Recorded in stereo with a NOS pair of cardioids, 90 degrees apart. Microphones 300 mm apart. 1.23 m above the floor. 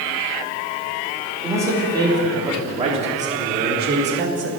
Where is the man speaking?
10° right, 4 m; by 4.5 s 40° right, 2.5 m.